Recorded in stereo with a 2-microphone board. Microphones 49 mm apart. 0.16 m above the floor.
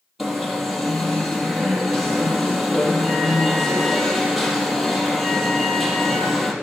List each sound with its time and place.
0.2 s an alarm: centre (ahead or behind), 4 m